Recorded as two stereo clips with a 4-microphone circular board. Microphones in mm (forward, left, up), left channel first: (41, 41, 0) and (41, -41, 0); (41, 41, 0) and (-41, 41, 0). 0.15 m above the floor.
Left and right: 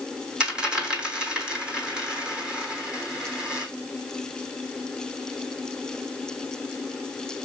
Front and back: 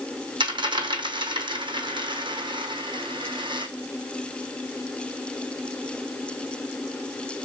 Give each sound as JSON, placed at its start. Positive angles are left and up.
{"t": 0.4, "sound": "a dropped coin", "azimuth_deg": -170, "distance_m": 1.0}